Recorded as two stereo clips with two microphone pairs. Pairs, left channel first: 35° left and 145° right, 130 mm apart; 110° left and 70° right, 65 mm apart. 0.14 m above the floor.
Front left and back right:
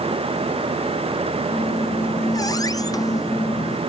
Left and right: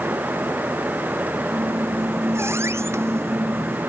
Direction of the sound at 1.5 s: 25° right.